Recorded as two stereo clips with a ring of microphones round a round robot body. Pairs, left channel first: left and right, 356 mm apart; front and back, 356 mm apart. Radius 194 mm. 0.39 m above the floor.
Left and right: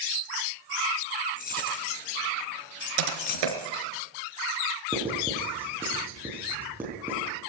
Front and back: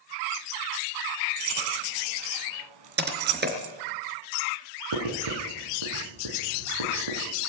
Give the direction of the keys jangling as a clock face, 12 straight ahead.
7 o'clock.